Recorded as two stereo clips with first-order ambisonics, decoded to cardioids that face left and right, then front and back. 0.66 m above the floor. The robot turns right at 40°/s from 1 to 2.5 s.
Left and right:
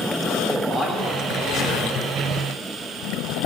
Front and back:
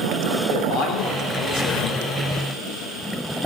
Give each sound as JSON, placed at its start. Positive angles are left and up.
{"t": 0.5, "sound": "a man speaking", "azimuth_deg": 0, "distance_m": 2.0}